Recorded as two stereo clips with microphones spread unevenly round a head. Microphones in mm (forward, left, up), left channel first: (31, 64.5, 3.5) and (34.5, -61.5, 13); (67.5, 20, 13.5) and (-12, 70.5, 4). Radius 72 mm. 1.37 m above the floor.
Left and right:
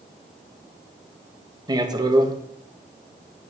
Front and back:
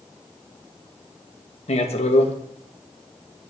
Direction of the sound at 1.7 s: 30° right.